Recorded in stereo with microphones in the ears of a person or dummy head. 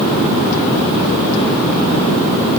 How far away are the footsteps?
No footsteps in this recording.